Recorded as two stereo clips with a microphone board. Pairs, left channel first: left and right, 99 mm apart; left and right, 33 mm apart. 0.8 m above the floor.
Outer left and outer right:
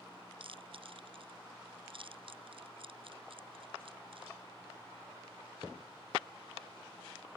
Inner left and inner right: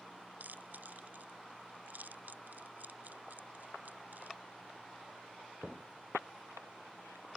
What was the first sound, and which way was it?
Chewing, 65° right (ahead or behind).